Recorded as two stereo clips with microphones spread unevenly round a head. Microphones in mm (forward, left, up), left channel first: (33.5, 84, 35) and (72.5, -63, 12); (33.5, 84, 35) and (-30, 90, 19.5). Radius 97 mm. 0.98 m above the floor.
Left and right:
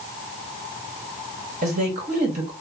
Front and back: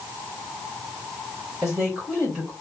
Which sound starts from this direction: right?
A woman speaking, at 1.6 s.